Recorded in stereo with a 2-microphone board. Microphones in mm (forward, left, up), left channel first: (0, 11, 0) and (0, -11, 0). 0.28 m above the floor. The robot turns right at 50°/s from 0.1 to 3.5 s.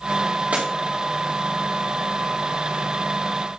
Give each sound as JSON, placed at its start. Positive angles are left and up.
{"t": 0.5, "sound": "breaking glass", "side_deg": -85, "distance_m": 4.0}